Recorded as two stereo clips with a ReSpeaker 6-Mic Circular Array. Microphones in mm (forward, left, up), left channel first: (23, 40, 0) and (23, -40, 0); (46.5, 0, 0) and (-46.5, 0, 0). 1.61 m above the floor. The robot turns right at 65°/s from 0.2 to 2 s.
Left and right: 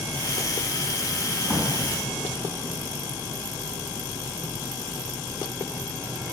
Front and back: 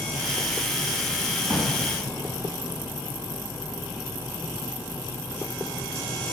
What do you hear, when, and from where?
1.4 s a drawer: 170° right, 3 m; by 1.7 s 155° right, 3 m